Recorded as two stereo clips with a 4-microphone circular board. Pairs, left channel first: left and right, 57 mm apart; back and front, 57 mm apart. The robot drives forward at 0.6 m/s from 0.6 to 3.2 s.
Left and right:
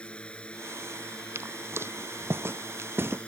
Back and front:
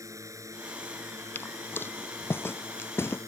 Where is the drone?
20° left.